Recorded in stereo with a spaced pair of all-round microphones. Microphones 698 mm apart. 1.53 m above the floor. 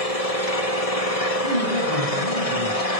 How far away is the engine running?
About 1.7 m.